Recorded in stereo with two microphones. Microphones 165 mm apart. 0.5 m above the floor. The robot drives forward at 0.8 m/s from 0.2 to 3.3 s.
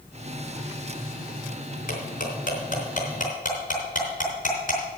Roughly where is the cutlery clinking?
Left.